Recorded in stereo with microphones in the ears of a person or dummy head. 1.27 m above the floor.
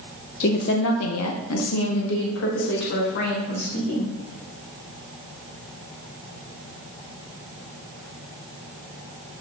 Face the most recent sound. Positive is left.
turn(degrees=50)  # may be behind; listen again after turning